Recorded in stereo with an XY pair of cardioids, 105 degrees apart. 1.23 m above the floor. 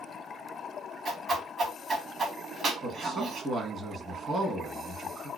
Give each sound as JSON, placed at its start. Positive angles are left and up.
{"t": 1.1, "sound": "a whoosh", "azimuth_deg": -50, "distance_m": 1.3}
{"t": 2.8, "sound": "a man speaking", "azimuth_deg": -45, "distance_m": 1.2}